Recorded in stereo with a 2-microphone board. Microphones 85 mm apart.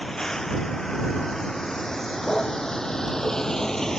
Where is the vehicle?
5° left (ahead or behind).